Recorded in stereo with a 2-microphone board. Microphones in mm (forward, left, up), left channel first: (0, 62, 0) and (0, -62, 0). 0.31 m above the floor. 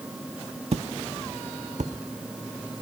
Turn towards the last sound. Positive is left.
turn(degrees=-80)